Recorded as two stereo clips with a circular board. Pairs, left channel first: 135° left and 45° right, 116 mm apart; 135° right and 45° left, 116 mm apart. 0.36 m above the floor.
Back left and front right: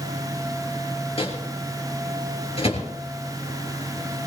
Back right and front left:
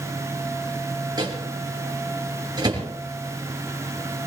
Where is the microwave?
100° left, 5 m.